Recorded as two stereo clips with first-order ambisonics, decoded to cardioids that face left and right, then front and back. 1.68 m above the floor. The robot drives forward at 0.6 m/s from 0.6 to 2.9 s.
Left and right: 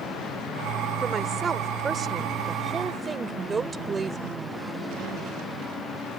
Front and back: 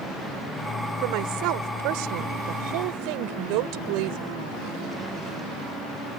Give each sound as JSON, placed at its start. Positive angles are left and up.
{"t": 1.0, "sound": "a woman speaking", "azimuth_deg": -165}